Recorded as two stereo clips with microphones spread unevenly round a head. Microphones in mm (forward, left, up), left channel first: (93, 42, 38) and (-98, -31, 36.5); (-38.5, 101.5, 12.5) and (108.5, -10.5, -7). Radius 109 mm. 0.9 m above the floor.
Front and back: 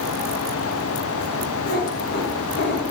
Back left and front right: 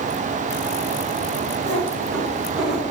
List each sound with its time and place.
1.6 s a cat meowing: 35° right, 4 m; by 2.8 s 20° right, 4.5 m